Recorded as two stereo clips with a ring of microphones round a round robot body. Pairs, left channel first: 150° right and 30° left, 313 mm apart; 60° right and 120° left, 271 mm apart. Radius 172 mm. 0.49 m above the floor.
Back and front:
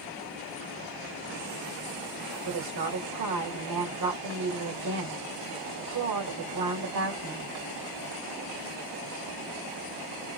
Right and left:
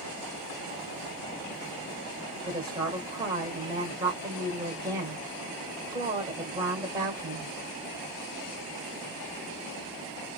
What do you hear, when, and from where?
2.5 s a woman speaking: 50° left, 1.9 m